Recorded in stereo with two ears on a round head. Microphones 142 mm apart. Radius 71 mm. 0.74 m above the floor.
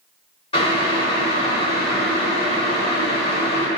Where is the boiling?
35° left (ahead or behind), 1.1 m.